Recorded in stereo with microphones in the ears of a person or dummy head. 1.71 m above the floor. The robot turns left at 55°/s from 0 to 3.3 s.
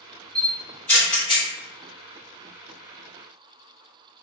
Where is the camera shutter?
20° right (ahead or behind), 0.9 m; by 1.5 s 40° left (ahead or behind), 0.9 m.